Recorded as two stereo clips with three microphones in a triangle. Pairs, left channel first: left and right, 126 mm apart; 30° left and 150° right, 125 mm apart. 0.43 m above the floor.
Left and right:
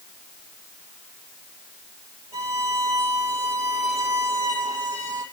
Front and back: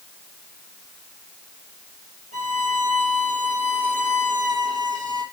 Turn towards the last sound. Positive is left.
turn(degrees=-155)